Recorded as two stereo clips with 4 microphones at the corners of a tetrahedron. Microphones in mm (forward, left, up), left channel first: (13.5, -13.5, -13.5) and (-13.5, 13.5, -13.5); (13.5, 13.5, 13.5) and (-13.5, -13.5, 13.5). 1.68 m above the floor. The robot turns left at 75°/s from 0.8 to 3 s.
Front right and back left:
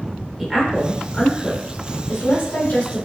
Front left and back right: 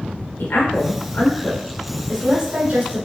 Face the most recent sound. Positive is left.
turn(degrees=-115)